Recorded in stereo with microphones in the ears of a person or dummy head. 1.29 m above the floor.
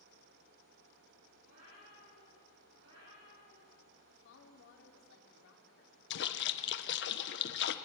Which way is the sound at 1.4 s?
80° right.